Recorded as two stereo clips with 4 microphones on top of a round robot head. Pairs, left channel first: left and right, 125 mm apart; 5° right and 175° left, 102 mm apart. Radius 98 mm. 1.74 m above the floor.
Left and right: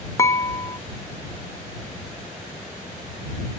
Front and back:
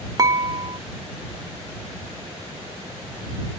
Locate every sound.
0.2 s dishes clattering: 145° left